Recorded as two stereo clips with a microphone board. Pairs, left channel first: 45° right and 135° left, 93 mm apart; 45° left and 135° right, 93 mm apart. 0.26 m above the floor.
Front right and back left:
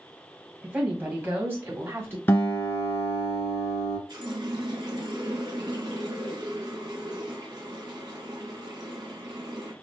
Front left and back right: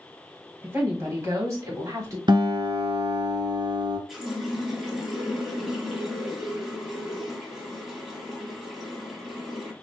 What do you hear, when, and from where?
0.6 s a woman speaking: 165° right, 1.6 m; by 2.2 s 170° right, 2.5 m
2.3 s a guitar: 110° right, 1.5 m
4.1 s a running tap: 140° left, 1.2 m